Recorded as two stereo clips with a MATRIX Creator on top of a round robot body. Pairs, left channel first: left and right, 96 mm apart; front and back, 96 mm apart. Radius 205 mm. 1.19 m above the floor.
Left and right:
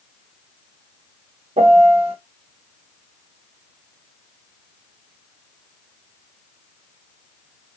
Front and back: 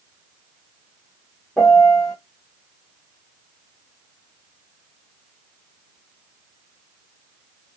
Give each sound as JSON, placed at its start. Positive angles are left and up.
{"t": 1.6, "sound": "a piano", "azimuth_deg": -85, "distance_m": 1.1}